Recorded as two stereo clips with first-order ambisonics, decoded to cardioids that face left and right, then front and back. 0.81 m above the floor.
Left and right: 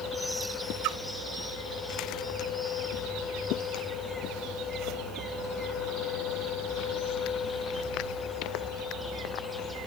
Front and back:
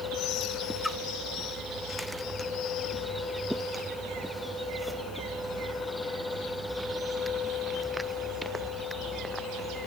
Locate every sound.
0.8 s a splash: 85° right